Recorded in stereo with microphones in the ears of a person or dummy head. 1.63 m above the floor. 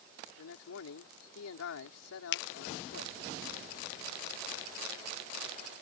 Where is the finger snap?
60° left (ahead or behind).